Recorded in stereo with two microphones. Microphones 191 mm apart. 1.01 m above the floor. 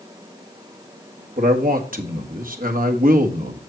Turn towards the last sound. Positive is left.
turn(degrees=-50)  # may be behind; listen again after turning